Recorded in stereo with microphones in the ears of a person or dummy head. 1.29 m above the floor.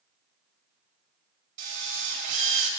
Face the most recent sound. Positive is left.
turn(degrees=-50)  # may be behind; listen again after turning